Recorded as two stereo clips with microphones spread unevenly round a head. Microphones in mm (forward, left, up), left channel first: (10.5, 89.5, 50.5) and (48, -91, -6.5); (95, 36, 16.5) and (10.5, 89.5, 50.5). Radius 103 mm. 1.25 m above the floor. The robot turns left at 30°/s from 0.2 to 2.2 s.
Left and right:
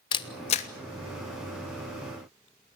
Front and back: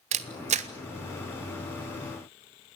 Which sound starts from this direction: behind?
A camera shutter, at 0.1 s.